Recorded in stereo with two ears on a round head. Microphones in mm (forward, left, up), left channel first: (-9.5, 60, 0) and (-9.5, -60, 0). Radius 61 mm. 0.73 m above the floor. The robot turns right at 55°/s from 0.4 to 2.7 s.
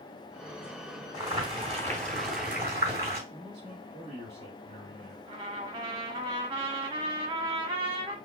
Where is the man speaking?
45° right (ahead or behind), 1.6 m.